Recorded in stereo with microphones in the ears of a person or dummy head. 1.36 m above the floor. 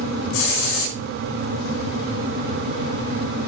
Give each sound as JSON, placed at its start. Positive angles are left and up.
{"t": 0.3, "sound": "a hiss", "side_deg": 75, "distance_m": 9.5}